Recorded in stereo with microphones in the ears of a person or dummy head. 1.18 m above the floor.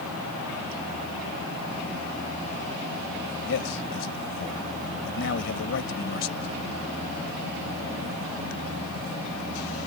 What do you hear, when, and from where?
3.5 s a man speaking: 65° left (ahead or behind)